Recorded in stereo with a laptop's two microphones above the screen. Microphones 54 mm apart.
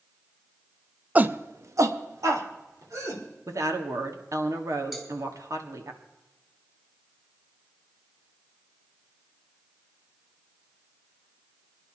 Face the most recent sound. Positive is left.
turn(degrees=-10)  # may be behind; listen again after turning